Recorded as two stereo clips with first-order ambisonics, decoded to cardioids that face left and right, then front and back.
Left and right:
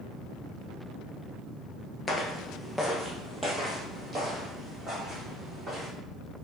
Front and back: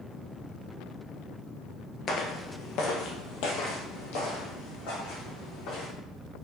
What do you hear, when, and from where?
2.1 s footsteps: 35° left, 0.8 m; by 5.9 s 10° right, 3 m